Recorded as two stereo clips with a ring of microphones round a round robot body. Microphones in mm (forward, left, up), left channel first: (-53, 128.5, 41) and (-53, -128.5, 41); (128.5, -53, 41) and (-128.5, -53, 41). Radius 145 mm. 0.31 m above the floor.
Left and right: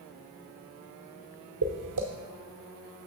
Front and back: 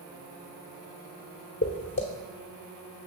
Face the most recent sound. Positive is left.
turn(degrees=-60)